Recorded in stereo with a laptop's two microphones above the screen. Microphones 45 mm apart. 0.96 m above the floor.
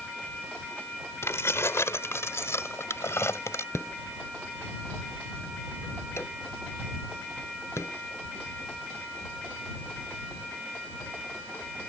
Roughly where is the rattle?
Left.